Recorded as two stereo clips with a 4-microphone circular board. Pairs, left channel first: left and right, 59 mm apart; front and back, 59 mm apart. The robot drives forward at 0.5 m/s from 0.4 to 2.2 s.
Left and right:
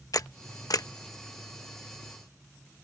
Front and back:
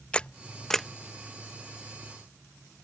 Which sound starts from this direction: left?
A camera shutter, at 0.1 s.